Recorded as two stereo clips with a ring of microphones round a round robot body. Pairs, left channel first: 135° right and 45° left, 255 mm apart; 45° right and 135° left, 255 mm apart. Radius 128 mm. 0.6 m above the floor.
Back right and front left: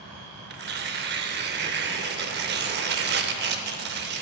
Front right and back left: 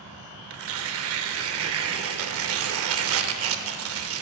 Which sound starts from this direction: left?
Tearing paper, at 0.5 s.